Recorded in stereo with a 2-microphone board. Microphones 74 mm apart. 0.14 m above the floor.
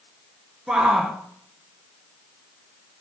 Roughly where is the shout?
Centre.